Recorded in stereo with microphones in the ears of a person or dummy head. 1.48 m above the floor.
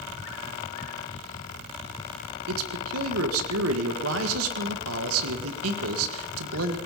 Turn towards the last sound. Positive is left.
turn(degrees=-85)